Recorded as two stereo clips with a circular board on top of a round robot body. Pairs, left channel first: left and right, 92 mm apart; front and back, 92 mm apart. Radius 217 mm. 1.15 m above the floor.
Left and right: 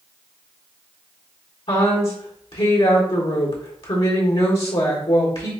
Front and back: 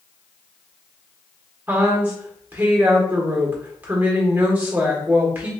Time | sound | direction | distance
1.7 | a woman speaking | 110° left | 1.5 m